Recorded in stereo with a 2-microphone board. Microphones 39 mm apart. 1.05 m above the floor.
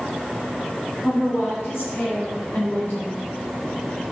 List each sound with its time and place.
1.0 s a woman speaking: 65° left (ahead or behind), 6.5 m; by 3.3 s 55° left (ahead or behind), 4 m